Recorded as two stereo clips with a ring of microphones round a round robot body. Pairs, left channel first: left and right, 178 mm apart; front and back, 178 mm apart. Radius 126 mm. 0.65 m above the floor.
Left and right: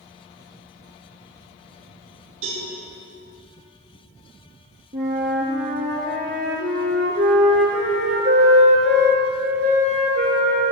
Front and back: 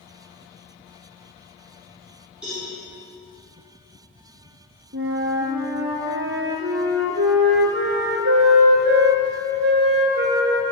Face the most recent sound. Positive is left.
turn(degrees=-145)